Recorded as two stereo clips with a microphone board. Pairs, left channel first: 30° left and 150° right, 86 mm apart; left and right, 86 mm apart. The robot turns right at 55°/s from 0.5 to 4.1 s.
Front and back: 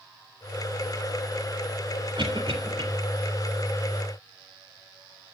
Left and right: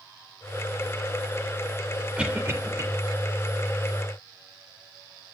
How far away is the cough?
About 3 m.